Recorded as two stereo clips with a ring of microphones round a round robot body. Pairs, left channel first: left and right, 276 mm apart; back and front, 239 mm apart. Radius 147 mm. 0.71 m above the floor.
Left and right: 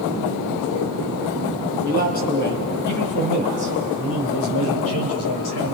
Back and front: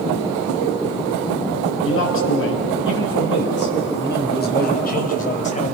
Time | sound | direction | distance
1.8 | a man speaking | 150° left | 5 m